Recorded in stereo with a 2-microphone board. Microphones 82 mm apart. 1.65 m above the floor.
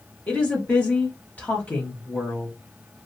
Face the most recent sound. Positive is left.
turn(degrees=20)  # may be behind; listen again after turning